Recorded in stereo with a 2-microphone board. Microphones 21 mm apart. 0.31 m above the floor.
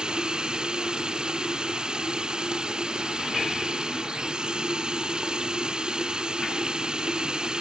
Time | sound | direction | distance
0.0 | running water | 40° right (ahead or behind) | ?